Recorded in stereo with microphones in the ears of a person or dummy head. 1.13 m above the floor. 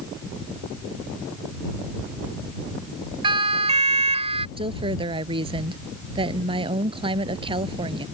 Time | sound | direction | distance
3.2 | a siren | 30° right (ahead or behind) | ?
4.6 | a woman speaking | 30° right (ahead or behind) | ?